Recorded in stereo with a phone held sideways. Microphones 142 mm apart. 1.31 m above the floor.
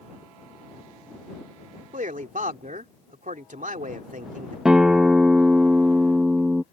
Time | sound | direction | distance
1.9 | a man speaking | 70° right (ahead or behind) | ?
4.7 | a guitar | 5° right (ahead or behind) | ?